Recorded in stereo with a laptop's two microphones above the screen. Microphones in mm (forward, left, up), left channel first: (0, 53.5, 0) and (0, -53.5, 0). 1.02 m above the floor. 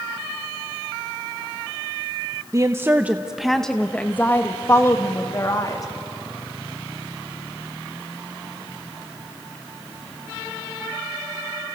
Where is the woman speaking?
35° right (ahead or behind), 0.9 m; by 5.8 s 35° left (ahead or behind), 2 m.